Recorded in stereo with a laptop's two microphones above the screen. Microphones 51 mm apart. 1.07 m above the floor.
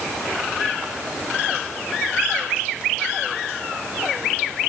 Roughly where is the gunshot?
I don't hear a gunshot.